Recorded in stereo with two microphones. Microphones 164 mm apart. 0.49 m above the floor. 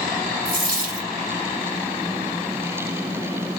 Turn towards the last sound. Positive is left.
turn(degrees=-55)  # may be behind; listen again after turning